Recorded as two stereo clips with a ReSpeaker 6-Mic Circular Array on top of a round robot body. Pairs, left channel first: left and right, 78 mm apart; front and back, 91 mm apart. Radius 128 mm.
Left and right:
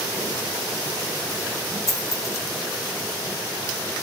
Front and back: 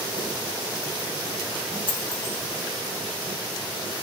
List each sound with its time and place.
1.9 s a dropped coin: 40° left, 1.2 m